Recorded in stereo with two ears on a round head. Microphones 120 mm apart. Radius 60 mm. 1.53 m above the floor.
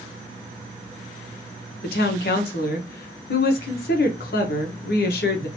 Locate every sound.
1.8 s a woman speaking: 80° left, 1.2 m